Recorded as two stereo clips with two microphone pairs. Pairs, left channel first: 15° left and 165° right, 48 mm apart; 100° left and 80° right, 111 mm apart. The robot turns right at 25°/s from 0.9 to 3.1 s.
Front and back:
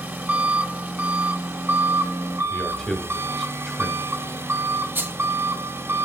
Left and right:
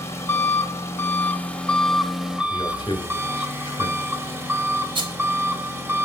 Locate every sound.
0.0 s an engine running: 160° left, 1.2 m; by 6.0 s 145° right, 1.2 m
2.5 s a man speaking: 75° left, 1.1 m; by 4.2 s 90° left, 1.1 m
5.0 s a rattle: 120° right, 1.5 m